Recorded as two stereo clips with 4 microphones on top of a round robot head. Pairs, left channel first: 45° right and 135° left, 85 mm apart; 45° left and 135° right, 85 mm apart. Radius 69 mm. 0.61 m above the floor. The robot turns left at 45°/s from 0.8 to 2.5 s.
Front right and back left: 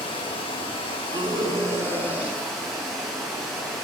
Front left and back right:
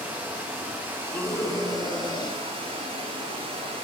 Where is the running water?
65° right, 3.5 m; by 3.8 s 140° right, 3.5 m.